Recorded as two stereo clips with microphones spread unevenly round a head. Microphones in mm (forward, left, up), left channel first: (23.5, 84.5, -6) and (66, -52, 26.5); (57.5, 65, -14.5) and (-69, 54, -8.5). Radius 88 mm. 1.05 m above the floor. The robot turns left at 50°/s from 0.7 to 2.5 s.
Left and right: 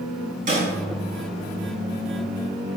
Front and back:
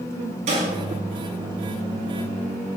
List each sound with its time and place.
0.5 s a snare drum: 120° right, 5 m